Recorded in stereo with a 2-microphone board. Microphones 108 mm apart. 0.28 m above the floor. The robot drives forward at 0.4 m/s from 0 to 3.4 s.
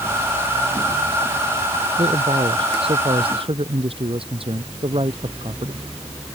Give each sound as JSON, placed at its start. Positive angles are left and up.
{"t": 2.0, "sound": "a man speaking", "side_deg": -55}